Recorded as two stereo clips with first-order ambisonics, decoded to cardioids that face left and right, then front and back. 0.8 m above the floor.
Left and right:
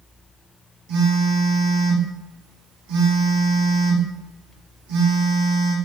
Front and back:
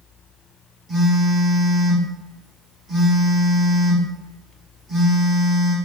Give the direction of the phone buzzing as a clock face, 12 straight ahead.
4 o'clock.